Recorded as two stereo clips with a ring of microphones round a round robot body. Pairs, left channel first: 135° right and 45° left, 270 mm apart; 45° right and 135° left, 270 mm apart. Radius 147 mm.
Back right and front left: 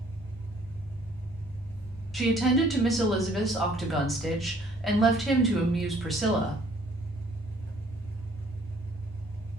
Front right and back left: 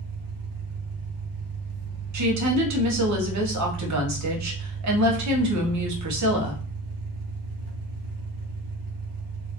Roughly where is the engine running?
Behind left.